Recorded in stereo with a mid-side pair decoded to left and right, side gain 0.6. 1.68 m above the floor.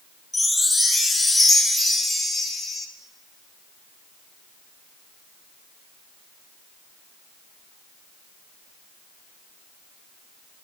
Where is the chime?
15° left, 1.1 m.